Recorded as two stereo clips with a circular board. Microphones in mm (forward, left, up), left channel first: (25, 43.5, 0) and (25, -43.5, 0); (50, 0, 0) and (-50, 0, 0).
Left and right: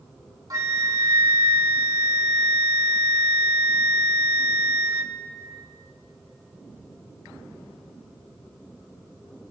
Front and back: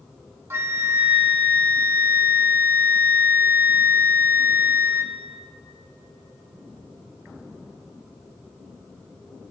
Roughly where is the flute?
Behind right.